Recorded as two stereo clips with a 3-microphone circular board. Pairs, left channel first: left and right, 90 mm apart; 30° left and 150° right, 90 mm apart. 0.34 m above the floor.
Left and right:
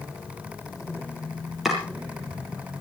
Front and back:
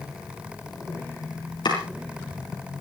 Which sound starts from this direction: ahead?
Chopping, at 1.6 s.